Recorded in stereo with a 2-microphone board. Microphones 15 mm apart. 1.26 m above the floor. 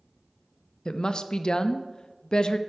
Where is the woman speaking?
50° left (ahead or behind), 0.5 m.